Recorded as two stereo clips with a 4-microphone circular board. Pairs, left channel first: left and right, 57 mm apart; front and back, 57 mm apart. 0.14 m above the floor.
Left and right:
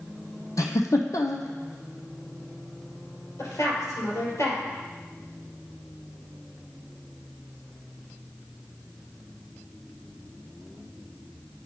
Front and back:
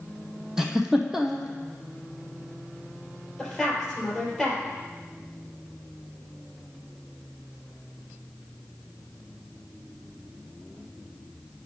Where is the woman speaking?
90° left, 3.5 m.